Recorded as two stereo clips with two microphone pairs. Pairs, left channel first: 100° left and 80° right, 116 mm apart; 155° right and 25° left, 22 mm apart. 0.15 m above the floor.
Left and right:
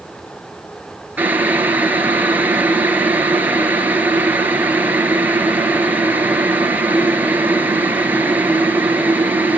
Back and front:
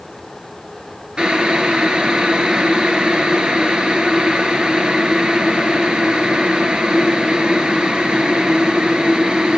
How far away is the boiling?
About 2.5 m.